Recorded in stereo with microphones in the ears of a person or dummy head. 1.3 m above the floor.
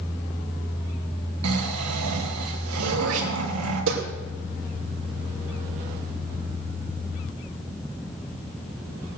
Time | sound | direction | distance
1.4 | snoring | 85° right | 2.5 m
2.8 | throat clearing | 75° right (ahead or behind) | 3 m